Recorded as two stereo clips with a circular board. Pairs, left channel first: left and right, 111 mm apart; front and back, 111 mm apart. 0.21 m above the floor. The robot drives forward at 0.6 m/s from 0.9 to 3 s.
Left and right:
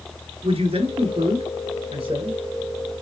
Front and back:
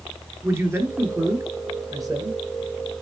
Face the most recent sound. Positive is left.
turn(degrees=-130)